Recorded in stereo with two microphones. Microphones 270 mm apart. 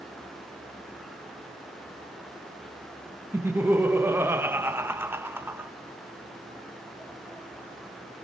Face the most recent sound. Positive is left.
turn(degrees=-10)  # may be behind; listen again after turning